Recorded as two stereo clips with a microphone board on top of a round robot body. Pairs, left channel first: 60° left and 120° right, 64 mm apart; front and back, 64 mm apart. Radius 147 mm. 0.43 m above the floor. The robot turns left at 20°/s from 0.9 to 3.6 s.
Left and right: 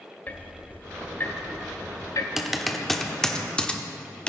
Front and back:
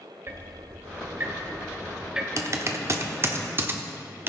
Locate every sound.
0.3 s ticking: 125° left, 0.6 m; by 2.3 s 100° left, 0.6 m
2.4 s typing on a keyboard: 155° left, 1.1 m; by 4.3 s 130° left, 1.1 m